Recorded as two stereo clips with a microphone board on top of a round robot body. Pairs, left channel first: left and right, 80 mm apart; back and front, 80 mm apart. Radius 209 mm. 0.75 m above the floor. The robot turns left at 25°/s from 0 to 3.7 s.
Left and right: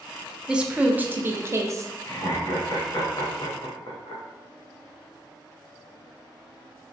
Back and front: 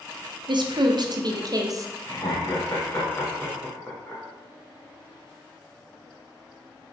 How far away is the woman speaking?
About 0.7 m.